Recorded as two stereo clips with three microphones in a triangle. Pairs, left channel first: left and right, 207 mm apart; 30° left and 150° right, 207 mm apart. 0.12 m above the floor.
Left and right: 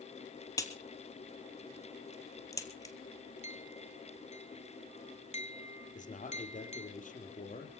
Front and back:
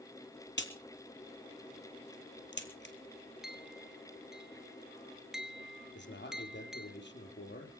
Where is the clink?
125° left, 1.3 m.